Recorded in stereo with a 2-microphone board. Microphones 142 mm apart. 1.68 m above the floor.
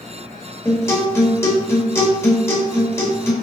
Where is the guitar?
20° left (ahead or behind), 2 m.